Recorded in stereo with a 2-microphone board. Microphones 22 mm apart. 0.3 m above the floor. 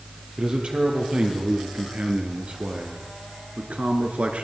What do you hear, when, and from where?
0.4 s a man speaking: 55° right (ahead or behind), 6 m; by 4.5 s 75° right (ahead or behind), 3.5 m